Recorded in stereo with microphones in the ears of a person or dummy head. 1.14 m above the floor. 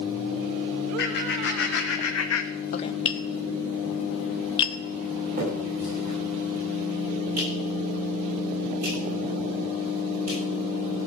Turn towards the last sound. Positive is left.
turn(degrees=-45)  # may be behind; listen again after turning